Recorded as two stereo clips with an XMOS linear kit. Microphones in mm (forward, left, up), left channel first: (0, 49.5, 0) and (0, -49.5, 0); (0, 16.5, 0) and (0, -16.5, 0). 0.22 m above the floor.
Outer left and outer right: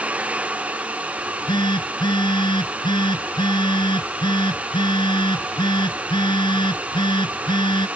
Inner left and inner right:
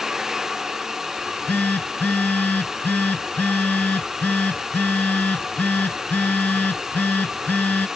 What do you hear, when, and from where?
1.2 s a phone buzzing: 55° left (ahead or behind)